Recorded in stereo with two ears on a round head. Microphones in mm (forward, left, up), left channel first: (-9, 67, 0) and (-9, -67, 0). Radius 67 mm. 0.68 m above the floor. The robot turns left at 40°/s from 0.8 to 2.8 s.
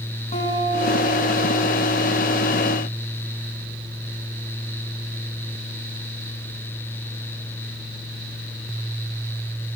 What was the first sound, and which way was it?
A guitar, 140° left.